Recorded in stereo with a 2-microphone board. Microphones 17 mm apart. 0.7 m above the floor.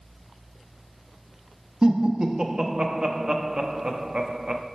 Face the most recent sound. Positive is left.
turn(degrees=-50)  # may be behind; listen again after turning